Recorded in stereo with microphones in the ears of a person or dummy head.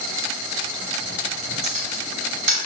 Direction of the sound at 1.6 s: 40° right (ahead or behind).